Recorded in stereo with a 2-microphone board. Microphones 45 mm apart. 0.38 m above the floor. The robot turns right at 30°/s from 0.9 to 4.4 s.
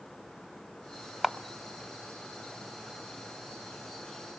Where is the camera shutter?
10° right (ahead or behind), 0.7 m; by 1.4 s 15° right (ahead or behind), 0.7 m.